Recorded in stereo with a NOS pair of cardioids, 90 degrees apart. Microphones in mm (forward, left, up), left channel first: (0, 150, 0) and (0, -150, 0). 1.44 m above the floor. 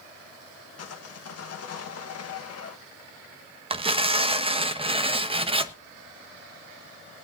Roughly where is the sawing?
Ahead left.